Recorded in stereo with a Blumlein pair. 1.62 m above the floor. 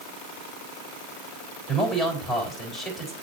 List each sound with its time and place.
1.7 s a man speaking: 5° left, 3.5 m